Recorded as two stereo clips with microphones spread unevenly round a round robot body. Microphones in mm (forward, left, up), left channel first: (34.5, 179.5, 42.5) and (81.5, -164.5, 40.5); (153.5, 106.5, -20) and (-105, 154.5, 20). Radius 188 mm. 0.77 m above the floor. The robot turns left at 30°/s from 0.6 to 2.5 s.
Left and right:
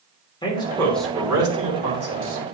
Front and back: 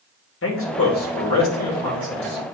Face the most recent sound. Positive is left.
turn(degrees=-35)